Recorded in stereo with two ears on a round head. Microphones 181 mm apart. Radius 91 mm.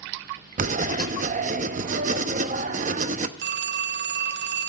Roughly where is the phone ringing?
Right.